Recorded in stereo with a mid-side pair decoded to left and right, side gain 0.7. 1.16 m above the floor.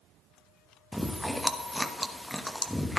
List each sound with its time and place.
0.9 s chewing: straight ahead, 1.0 m